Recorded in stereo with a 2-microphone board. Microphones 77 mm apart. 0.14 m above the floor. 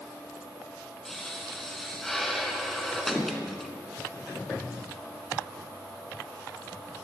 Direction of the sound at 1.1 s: 5° left (ahead or behind).